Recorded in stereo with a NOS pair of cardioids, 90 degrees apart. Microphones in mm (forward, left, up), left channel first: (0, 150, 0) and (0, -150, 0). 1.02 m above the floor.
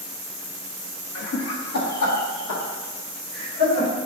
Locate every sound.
1.1 s laughter: 55° left, 0.9 m; by 3.9 s 70° left, 3 m